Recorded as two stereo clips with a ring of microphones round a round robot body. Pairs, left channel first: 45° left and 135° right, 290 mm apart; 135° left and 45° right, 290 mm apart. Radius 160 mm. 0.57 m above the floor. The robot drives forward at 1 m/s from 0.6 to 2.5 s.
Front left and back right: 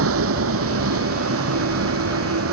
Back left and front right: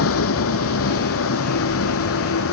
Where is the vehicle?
Straight behind.